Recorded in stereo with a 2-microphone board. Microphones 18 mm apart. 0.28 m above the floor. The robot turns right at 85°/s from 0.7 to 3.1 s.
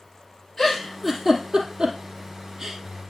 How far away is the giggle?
About 2.5 m.